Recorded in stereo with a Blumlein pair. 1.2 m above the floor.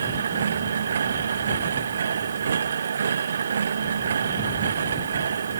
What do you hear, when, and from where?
0.0 s a machine running: 70° right